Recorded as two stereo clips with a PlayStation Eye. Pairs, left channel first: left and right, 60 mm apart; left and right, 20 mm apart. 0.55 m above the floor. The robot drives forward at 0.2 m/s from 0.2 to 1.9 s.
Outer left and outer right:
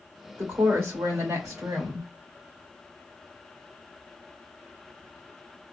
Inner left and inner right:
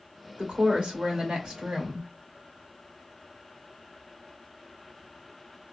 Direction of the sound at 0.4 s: 60° right (ahead or behind).